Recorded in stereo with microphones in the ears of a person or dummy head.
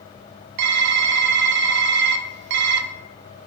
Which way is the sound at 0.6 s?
60° right (ahead or behind).